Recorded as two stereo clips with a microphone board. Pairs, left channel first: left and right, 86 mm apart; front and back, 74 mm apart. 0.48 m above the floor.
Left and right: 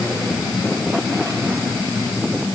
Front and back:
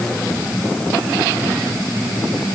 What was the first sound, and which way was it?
Only background noise.